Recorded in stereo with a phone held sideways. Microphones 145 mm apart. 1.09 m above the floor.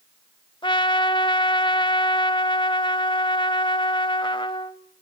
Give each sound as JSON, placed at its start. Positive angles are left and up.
{"t": 0.6, "sound": "a trumpet", "side_deg": 30, "distance_m": 1.0}